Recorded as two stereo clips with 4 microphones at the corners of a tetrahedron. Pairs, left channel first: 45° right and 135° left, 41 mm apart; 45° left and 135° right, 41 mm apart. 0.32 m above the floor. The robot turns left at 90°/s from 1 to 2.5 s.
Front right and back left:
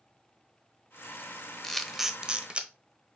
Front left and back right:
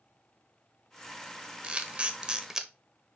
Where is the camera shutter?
115° right, 1.0 m; by 2.7 s 165° left, 1.0 m.